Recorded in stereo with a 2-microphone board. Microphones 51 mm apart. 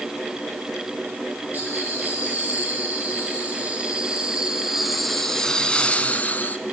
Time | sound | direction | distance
1.5 | laughter | 35° right (ahead or behind) | 4 m